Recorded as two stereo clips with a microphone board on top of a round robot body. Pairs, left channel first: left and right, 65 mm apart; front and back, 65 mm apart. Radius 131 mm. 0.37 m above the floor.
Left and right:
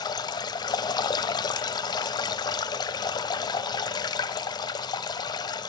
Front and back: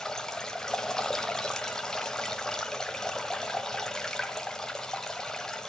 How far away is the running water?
About 0.7 m.